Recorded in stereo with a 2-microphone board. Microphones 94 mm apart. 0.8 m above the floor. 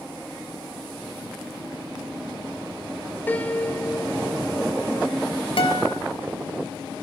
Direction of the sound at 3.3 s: 20° left (ahead or behind).